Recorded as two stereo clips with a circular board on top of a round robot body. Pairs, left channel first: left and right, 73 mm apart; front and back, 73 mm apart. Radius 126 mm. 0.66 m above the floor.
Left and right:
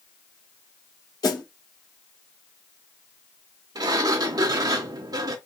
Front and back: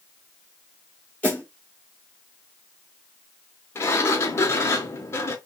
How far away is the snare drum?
About 2.5 m.